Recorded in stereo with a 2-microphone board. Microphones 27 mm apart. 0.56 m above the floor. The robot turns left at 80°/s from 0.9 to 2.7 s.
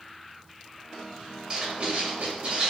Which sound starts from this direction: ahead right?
Writing, at 1.5 s.